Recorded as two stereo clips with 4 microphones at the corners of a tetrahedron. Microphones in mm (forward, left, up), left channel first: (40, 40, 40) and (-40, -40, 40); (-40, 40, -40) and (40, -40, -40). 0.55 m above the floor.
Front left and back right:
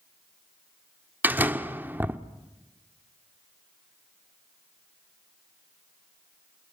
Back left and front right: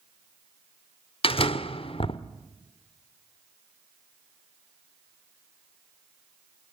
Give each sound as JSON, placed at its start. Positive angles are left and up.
{"t": 1.2, "sound": "a door slam", "azimuth_deg": 155, "distance_m": 1.0}